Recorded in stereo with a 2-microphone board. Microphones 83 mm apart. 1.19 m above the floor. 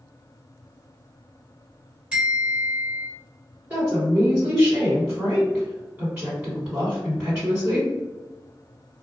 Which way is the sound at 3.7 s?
25° right (ahead or behind).